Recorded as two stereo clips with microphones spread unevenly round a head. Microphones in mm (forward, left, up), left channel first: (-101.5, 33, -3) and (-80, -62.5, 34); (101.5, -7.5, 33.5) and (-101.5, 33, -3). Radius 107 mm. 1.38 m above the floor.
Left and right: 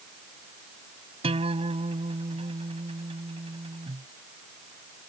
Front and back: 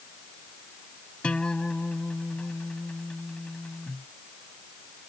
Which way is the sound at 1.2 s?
95° right.